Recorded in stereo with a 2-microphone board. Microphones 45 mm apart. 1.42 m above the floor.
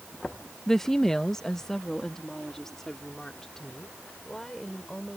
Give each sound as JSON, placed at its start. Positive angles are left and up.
{"t": 0.7, "sound": "a woman speaking", "side_deg": 10}